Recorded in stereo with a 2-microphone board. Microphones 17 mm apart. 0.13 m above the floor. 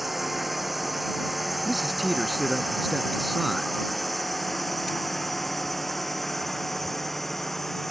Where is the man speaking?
Centre (ahead or behind).